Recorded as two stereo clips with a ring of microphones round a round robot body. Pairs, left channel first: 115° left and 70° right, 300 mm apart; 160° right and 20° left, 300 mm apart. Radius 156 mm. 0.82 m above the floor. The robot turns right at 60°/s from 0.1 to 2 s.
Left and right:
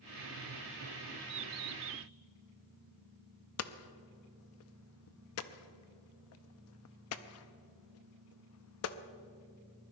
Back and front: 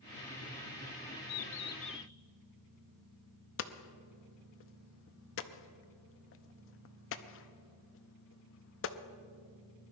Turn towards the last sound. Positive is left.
turn(degrees=155)